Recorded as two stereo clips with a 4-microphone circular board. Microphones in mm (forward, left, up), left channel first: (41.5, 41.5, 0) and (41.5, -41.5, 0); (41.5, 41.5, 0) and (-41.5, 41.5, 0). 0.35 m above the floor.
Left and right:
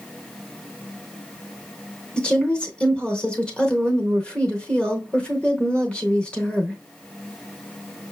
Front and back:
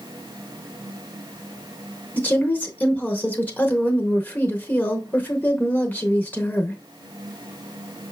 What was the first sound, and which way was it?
A woman speaking, 35° left.